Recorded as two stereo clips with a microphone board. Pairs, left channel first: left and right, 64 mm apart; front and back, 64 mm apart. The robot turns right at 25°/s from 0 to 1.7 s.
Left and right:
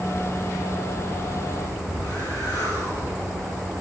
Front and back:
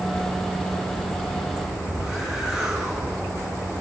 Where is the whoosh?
100° left, 6.5 m.